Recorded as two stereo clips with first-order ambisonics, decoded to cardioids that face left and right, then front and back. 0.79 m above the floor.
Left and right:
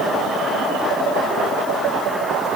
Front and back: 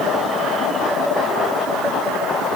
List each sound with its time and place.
Only background noise.